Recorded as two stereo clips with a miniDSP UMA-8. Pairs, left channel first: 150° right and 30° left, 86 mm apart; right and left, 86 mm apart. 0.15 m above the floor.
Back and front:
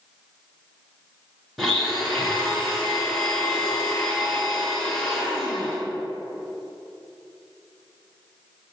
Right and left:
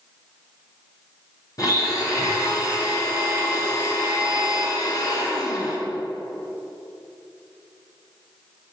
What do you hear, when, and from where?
1.6 s a blender: 60° right, 2 m